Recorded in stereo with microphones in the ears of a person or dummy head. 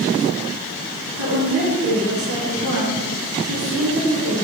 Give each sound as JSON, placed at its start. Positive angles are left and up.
{"t": 1.2, "sound": "a woman speaking", "side_deg": -85, "distance_m": 4.5}